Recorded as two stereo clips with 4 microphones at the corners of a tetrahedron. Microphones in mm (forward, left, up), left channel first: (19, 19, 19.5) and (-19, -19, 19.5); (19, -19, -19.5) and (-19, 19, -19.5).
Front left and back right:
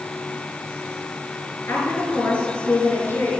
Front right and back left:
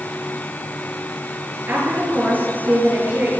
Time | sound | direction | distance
1.7 | a woman speaking | 85° left | 4.5 m